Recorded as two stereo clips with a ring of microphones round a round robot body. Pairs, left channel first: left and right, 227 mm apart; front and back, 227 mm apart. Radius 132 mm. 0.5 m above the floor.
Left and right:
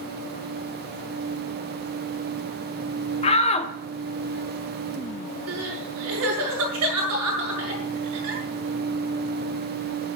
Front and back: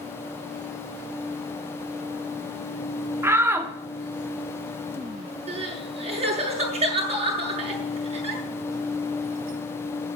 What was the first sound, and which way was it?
A shout, 115° left.